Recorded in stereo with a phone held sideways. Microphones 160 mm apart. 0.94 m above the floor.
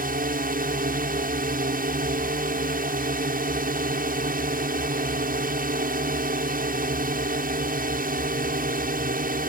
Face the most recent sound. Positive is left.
turn(degrees=-65)  # may be behind; listen again after turning